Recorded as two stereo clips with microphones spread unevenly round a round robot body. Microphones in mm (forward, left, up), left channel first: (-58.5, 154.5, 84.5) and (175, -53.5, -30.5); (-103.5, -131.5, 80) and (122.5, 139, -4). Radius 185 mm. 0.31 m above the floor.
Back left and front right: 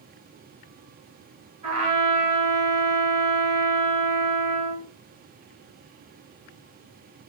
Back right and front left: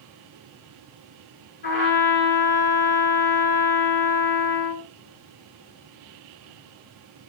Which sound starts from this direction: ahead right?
A trumpet, at 1.6 s.